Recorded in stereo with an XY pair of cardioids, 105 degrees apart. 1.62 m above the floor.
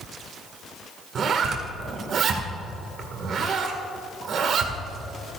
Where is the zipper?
60° right, 2.0 m.